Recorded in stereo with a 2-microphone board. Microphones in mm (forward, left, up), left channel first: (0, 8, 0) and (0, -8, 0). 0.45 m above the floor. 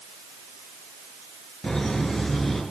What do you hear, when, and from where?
1.6 s laughter: 40° left (ahead or behind), 7.5 m